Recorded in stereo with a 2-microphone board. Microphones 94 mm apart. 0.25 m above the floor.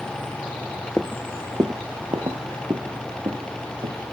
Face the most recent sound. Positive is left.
turn(degrees=-70)  # may be behind; listen again after turning